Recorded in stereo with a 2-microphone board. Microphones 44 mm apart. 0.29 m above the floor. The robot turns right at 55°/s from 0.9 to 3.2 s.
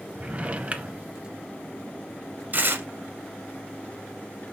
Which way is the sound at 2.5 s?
45° right (ahead or behind).